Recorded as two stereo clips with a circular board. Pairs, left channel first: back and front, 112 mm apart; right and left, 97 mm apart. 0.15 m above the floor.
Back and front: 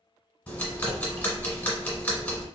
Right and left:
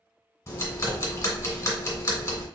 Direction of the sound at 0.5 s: 110° right.